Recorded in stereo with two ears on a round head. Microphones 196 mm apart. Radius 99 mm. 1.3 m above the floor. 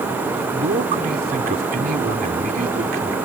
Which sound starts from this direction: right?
A man speaking, at 0.5 s.